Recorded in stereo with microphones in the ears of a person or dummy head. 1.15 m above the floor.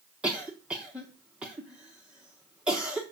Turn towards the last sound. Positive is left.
turn(degrees=-5)  # may be behind; listen again after turning